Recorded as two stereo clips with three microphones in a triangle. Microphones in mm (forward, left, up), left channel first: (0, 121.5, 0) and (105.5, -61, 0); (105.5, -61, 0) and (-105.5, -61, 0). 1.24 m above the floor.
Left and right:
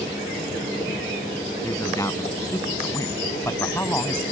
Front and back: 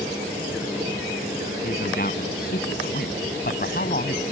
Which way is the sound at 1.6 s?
45° left.